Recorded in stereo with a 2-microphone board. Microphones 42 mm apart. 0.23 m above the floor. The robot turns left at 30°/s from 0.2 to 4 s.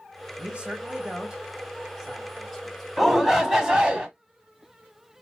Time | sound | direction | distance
0.4 | a man speaking | 25° right (ahead or behind) | 1.7 m
3.0 | a shout | 5° right | 1.2 m